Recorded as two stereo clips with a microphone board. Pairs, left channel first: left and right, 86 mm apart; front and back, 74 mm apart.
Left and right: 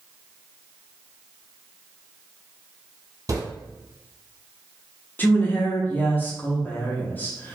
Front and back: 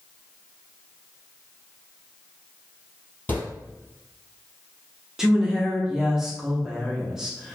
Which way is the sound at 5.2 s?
110° left.